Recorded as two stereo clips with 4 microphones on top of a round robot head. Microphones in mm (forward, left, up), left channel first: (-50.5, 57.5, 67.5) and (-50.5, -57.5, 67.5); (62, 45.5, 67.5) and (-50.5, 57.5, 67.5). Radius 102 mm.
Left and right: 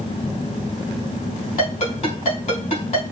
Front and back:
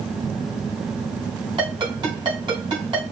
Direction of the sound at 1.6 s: 125° left.